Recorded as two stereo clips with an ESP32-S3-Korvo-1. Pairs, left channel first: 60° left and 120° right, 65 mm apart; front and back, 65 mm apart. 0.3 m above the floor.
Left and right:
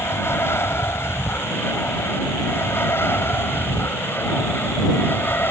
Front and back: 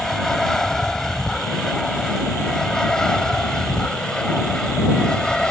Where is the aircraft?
80° left; by 5.5 s 70° left.